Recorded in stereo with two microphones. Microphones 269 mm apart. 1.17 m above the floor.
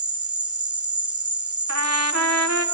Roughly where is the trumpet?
Right.